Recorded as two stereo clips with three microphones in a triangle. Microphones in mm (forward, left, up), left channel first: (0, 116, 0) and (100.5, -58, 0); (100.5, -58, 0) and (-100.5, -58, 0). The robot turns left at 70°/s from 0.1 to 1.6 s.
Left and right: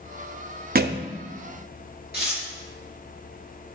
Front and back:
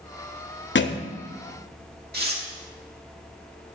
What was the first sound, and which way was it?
A thud, 20° right.